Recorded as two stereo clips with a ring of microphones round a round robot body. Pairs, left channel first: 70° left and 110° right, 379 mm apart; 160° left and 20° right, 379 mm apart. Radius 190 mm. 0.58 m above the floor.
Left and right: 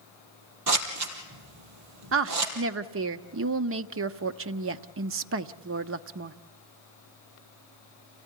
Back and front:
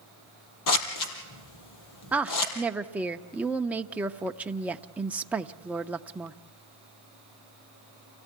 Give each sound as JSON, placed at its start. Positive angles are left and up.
{"t": 0.7, "sound": "scissors", "azimuth_deg": -160, "distance_m": 3.5}
{"t": 2.1, "sound": "a woman speaking", "azimuth_deg": -105, "distance_m": 0.7}